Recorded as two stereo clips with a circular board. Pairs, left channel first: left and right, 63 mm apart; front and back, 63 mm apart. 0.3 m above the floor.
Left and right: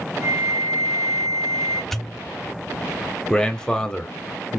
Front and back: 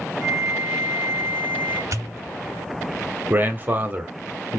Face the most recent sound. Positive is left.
turn(degrees=160)